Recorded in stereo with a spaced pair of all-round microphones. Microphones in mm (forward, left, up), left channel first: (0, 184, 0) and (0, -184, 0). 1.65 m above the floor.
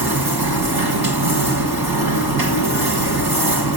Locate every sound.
0.0 s a machine running: 80° right, 1.9 m